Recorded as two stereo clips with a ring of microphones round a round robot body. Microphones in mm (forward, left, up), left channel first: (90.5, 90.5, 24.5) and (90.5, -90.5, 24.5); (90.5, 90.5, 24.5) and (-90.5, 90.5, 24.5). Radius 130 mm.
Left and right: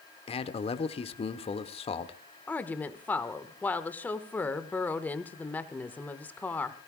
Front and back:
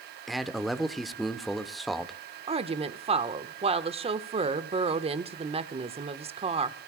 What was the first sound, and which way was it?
A man speaking, 90° left.